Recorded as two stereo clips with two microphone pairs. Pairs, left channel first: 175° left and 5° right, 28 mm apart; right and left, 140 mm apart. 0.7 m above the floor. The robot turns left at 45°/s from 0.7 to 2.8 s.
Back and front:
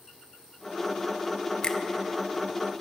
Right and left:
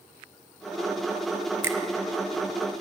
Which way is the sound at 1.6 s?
150° left.